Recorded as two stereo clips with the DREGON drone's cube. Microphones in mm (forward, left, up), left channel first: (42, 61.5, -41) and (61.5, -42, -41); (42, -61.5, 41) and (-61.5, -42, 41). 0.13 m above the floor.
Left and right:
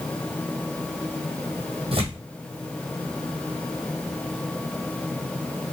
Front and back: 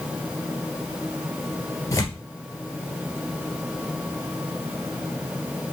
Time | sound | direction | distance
1.9 | tearing paper | 70° right | 2 m